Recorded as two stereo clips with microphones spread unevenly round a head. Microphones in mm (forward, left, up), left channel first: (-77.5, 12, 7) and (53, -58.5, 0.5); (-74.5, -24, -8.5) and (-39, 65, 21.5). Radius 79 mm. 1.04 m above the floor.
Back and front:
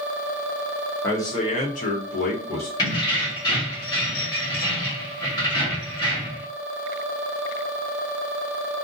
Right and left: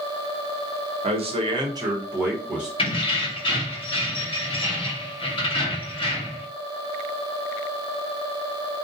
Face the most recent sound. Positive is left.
turn(degrees=-145)